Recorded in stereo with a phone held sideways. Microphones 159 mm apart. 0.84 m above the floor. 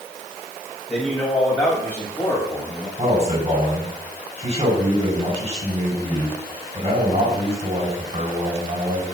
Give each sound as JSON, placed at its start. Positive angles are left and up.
{"t": 0.9, "sound": "a man speaking", "side_deg": 5, "distance_m": 6.0}
{"t": 3.0, "sound": "a man speaking", "side_deg": -40, "distance_m": 5.5}